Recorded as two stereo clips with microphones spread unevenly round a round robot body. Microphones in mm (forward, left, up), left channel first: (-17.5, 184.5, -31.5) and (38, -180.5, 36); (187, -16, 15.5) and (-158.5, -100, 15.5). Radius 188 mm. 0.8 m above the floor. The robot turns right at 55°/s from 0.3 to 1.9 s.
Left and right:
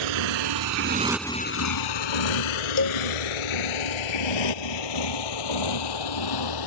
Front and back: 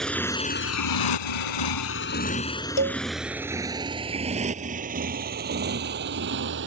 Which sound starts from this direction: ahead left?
A cowbell, at 2.8 s.